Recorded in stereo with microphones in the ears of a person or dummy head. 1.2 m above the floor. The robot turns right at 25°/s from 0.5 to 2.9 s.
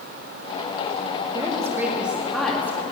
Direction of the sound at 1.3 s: 20° right.